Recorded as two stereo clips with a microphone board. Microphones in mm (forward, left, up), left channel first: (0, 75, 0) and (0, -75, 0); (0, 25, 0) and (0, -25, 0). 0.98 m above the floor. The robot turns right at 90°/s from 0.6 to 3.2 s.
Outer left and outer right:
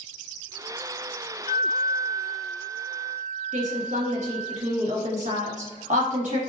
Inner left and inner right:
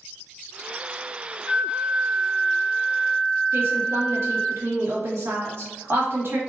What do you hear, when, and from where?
1.5 s a flute: 60° left, 1.1 m; by 4.5 s 145° right, 1.1 m
3.5 s a woman speaking: 55° right (ahead or behind), 1.3 m